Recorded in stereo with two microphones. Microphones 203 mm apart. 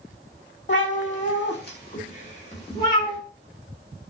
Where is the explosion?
I don't hear an explosion.